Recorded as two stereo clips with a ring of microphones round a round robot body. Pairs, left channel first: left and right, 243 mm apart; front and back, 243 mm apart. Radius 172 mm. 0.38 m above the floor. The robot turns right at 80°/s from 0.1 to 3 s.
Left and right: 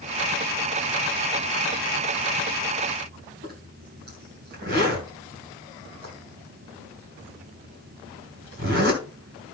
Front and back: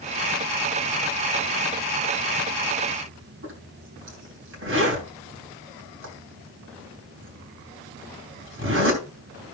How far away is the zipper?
About 3 m.